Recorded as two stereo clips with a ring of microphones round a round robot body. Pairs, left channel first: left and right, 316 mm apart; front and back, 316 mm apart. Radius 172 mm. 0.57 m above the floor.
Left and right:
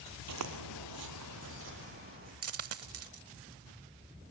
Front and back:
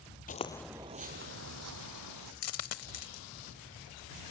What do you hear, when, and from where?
0.3 s footsteps: 60° right, 0.9 m; by 2.3 s 155° right, 1.9 m
2.4 s a dropped coin: 45° right, 0.9 m